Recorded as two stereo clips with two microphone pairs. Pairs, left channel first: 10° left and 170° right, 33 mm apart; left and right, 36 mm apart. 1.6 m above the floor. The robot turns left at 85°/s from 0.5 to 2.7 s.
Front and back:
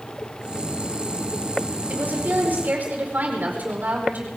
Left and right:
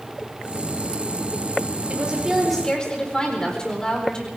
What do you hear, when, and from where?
1.9 s a woman speaking: 135° right, 5 m; by 4.3 s 160° left, 5 m